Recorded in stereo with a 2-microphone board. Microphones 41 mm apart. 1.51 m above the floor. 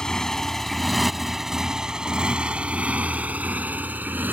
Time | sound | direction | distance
0.0 | a motorcycle | 20° left (ahead or behind) | ?